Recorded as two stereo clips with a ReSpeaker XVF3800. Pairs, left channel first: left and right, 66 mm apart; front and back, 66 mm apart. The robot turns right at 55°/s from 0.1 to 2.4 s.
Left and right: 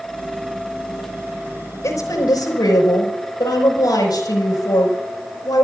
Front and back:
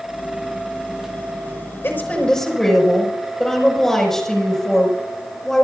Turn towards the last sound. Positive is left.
turn(degrees=85)